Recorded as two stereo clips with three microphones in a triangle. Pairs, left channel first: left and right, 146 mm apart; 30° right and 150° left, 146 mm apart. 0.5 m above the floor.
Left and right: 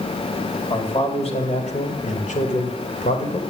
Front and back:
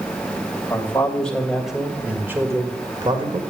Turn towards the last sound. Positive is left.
turn(degrees=105)